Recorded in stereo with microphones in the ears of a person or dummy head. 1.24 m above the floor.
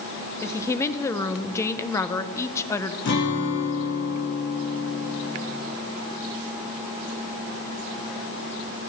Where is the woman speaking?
15° left (ahead or behind), 0.9 m.